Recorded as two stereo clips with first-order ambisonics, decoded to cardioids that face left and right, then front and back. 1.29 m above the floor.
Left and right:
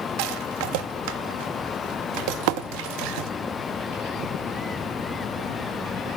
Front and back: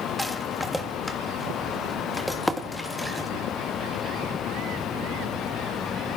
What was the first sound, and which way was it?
A rattle, 85° right.